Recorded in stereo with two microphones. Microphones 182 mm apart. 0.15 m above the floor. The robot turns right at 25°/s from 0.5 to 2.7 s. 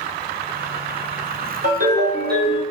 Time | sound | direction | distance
1.6 | a ringtone | 50° right (ahead or behind) | 1.7 m